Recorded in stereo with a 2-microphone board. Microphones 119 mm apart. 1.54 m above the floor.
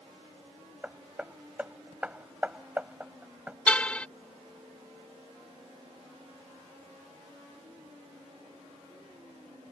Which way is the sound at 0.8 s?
10° right (ahead or behind).